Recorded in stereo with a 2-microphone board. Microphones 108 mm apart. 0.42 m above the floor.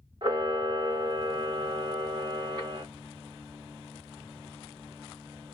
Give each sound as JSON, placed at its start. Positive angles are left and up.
{"t": 0.2, "sound": "a camera shutter", "side_deg": -45, "distance_m": 1.1}